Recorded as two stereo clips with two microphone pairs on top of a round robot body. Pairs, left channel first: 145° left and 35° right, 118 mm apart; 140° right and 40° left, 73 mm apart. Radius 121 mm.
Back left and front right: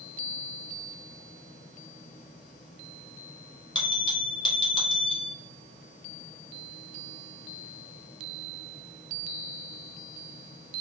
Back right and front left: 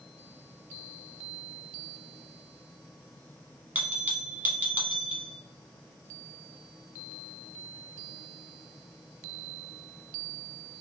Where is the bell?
110° left, 1.3 m.